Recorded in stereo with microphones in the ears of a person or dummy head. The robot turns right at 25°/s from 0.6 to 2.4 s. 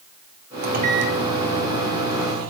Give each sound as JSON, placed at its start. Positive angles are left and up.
{"t": 0.6, "sound": "a microwave", "azimuth_deg": -130, "distance_m": 1.4}